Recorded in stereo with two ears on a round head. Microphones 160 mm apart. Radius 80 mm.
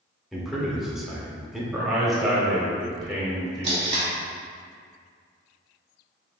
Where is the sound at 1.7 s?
Centre (ahead or behind), 0.9 m.